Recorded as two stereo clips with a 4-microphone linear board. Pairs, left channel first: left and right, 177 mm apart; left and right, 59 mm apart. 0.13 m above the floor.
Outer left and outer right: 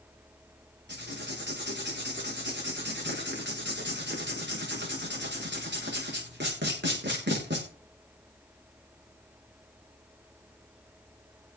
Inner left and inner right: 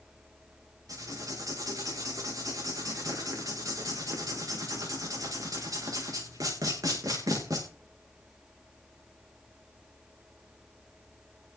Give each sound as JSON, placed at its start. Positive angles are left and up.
{"t": 0.9, "sound": "writing", "side_deg": -80, "distance_m": 6.5}